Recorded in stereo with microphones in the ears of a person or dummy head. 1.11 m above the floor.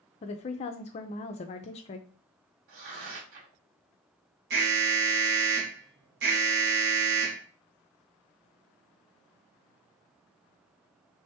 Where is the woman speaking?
30° left (ahead or behind), 0.5 m.